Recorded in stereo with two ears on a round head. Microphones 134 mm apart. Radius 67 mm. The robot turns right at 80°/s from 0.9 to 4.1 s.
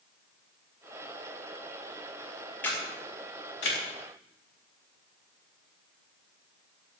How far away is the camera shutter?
About 5.5 m.